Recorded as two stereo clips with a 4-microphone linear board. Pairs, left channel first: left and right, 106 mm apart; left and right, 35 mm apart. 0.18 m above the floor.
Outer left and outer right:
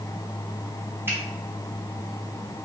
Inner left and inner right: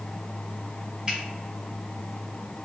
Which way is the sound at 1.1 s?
20° right (ahead or behind).